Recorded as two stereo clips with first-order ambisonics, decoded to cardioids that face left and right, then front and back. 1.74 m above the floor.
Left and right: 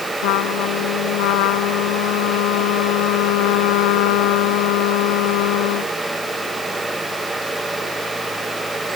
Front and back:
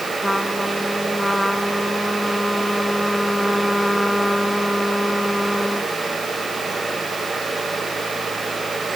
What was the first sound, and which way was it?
A trumpet, 85° left.